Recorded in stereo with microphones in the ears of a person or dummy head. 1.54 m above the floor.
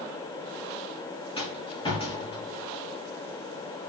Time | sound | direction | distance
1.4 | a rattle | 30° left (ahead or behind) | 3 m